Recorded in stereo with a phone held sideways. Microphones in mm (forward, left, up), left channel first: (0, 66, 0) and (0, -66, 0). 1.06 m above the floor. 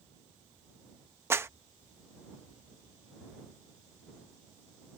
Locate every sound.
1.3 s a clap: 20° right (ahead or behind)